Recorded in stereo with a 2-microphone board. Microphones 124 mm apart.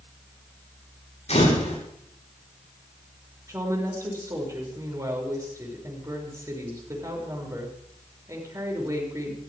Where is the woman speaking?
25° right (ahead or behind), 6.5 m.